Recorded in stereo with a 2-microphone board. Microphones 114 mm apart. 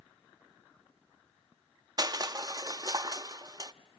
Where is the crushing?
35° right (ahead or behind), 0.6 m.